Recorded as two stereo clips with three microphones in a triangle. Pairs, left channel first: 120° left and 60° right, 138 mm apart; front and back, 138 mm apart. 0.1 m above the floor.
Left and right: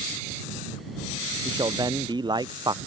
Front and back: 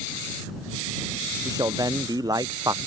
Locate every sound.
1.4 s a man speaking: 115° right